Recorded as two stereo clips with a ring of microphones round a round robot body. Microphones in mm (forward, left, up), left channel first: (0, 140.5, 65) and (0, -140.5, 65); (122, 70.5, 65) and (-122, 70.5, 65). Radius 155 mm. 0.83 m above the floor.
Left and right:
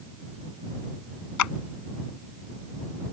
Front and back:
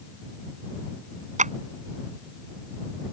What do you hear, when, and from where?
1.4 s a clap: 120° left